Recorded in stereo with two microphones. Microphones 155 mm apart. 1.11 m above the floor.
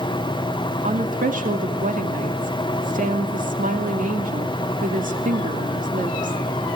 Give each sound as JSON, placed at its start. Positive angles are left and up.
{"t": 0.8, "sound": "a woman speaking", "side_deg": -60, "distance_m": 2.0}